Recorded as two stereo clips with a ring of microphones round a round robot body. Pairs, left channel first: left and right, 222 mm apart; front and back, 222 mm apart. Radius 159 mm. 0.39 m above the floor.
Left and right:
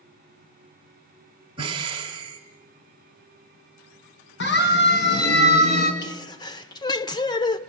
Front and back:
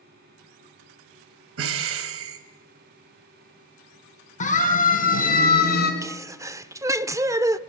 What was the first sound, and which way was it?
Breathing, 160° right.